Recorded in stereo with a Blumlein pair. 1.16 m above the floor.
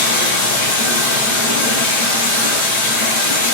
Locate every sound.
0.0 s running water: 60° left, 4 m